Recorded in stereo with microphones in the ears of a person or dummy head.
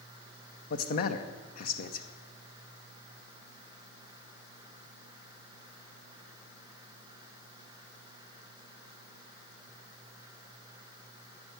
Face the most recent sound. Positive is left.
turn(degrees=45)  # may be behind; listen again after turning